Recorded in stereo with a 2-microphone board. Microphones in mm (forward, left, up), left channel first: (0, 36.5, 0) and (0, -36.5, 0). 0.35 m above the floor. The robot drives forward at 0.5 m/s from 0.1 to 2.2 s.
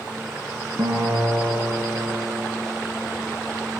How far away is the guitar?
About 1.9 m.